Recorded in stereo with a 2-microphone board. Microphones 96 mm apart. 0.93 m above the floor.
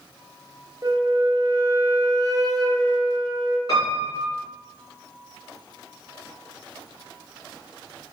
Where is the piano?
45° left (ahead or behind), 1.8 m.